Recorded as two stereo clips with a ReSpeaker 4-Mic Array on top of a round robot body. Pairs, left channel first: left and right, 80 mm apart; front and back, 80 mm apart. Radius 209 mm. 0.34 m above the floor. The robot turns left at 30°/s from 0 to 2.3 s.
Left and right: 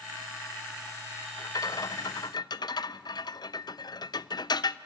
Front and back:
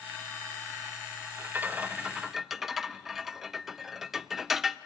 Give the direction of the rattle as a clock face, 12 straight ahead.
8 o'clock.